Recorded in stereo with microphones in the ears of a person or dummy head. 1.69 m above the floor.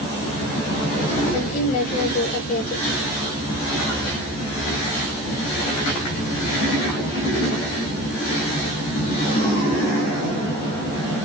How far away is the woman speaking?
About 6 m.